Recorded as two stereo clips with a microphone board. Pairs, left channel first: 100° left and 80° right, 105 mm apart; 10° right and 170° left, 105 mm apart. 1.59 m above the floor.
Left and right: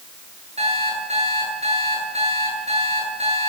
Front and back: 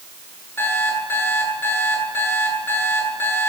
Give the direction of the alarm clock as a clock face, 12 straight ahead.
3 o'clock.